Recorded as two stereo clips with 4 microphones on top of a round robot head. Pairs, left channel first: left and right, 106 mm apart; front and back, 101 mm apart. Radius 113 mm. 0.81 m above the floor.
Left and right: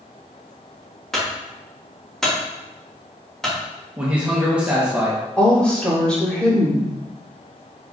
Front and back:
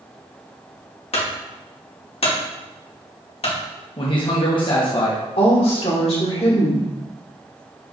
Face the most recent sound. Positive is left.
turn(degrees=10)